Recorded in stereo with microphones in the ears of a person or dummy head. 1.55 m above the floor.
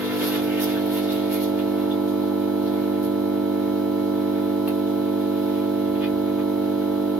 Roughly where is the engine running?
Centre.